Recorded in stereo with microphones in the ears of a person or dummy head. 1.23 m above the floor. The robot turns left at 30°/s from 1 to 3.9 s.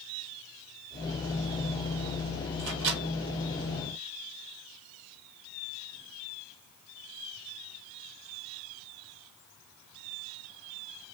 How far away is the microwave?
About 2.5 m.